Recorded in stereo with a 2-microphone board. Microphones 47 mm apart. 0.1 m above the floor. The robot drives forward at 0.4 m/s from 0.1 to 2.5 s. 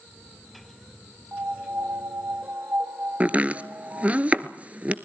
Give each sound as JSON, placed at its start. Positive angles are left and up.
{"t": 1.3, "sound": "a piano", "side_deg": -50, "distance_m": 1.6}
{"t": 3.2, "sound": "chopping", "side_deg": -30, "distance_m": 0.8}